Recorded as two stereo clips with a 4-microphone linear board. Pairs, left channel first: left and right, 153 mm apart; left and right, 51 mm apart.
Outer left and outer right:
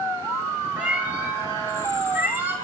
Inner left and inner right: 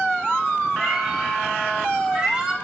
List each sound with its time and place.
0.8 s a cat meowing: 10° right (ahead or behind), 9 m; by 2.5 s 15° right (ahead or behind), 7 m